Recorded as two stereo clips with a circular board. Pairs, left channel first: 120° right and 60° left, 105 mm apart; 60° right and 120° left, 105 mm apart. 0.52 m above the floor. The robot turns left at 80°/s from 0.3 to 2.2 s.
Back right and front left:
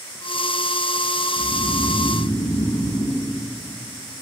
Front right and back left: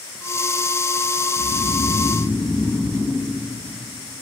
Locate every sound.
1.4 s snoring: 45° right, 3.5 m; by 3.3 s 115° right, 3.5 m